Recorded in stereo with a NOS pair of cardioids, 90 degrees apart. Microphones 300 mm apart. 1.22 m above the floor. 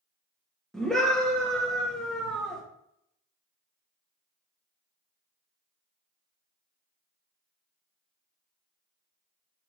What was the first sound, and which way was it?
A scream, straight ahead.